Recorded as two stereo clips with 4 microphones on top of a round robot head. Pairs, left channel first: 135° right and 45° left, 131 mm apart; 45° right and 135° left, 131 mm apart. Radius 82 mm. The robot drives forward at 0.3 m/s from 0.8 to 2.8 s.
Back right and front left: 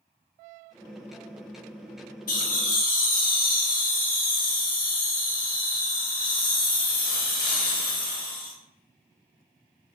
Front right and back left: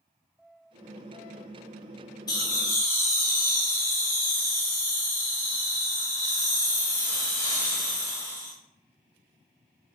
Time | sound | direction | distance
2.3 | laughter | 110° right | 0.9 m